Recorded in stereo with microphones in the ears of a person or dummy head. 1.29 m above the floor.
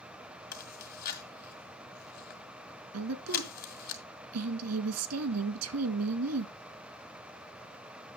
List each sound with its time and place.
0.5 s chewing: 50° left (ahead or behind), 1.9 m
2.9 s a woman speaking: 85° right, 1.5 m